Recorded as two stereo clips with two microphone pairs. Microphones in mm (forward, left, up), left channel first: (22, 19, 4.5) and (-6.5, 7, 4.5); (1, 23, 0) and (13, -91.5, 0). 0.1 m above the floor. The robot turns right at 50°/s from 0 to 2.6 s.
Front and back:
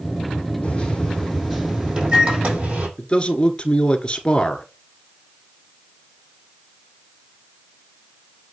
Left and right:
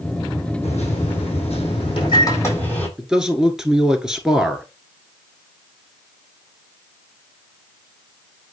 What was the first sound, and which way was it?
A microwave, 70° left.